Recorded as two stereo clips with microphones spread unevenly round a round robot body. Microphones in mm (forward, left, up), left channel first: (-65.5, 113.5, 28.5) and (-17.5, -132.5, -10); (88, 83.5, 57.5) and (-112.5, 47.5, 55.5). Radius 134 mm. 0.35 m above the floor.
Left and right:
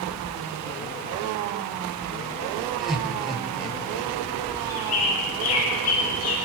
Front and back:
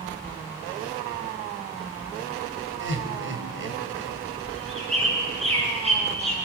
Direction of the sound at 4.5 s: 130° left.